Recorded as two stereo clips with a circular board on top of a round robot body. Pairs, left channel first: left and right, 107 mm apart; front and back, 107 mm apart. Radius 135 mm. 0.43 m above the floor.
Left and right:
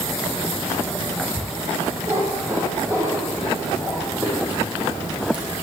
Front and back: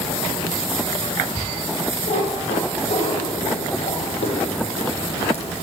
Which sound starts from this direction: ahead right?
A cat meowing, at 2.1 s.